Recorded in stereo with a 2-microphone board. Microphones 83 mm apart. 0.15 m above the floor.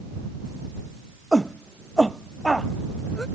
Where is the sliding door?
No sliding door in this recording.